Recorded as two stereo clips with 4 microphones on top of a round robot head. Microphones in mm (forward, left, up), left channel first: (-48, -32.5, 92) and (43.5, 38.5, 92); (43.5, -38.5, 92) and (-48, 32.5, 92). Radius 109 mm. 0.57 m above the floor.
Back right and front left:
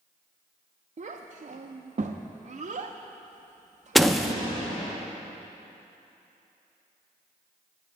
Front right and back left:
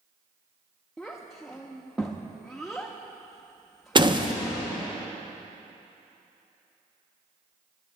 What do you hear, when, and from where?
1.0 s a child speaking: 50° left, 0.6 m
4.0 s a door slam: 130° left, 0.8 m